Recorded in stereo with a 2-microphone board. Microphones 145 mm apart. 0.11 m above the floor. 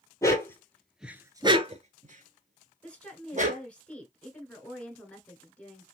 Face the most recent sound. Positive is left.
turn(degrees=10)  # may be behind; listen again after turning